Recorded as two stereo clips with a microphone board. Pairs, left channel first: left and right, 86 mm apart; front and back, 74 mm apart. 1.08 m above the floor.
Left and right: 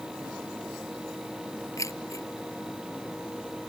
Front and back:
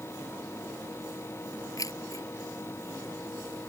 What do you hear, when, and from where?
1.8 s keys jangling: 40° left